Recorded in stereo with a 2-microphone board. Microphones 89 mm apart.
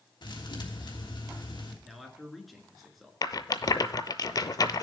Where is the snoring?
No snoring in this recording.